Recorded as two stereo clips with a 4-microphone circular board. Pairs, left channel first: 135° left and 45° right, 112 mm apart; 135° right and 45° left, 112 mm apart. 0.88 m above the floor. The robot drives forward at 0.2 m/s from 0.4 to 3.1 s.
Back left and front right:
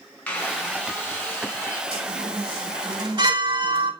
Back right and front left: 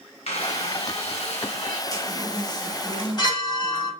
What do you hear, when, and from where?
0.3 s a squeak: 150° right, 3 m
1.9 s a chime: 80° right, 2.5 m; by 3.9 s 85° right, 2.5 m